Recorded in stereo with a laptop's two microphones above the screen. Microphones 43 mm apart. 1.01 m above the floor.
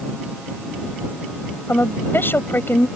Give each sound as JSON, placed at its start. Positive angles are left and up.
{"t": 1.7, "sound": "a woman speaking", "side_deg": 55}